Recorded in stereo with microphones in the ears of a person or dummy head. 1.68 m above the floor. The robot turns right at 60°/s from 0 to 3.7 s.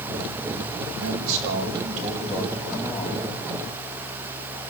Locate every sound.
1.0 s a man speaking: 105° right, 9.5 m; by 3.3 s 35° left, 9.5 m